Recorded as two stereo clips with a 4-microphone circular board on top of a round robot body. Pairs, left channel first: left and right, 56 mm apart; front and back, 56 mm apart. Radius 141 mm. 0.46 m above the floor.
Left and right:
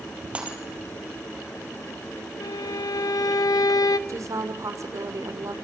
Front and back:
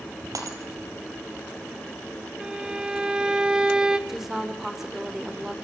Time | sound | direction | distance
0.3 | breaking glass | 160° right | 3.5 m
2.4 | a violin | 105° left | 0.5 m
4.1 | a woman speaking | 95° right | 2.5 m